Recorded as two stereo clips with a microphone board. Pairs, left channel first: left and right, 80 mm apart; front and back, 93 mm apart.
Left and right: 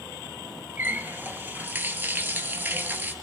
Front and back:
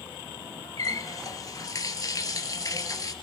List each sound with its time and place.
0.8 s a running tap: 35° right, 1.3 m